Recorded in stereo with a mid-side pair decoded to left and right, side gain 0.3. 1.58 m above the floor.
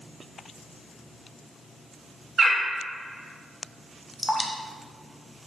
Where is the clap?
I don't hear a clap.